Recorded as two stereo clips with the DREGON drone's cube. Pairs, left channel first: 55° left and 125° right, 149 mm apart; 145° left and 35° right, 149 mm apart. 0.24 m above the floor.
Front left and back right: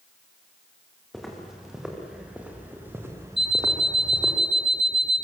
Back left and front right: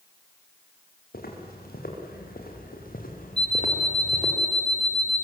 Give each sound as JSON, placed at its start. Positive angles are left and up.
{"t": 1.1, "sound": "footsteps", "azimuth_deg": 145, "distance_m": 6.5}
{"t": 3.4, "sound": "an alarm clock", "azimuth_deg": -170, "distance_m": 1.9}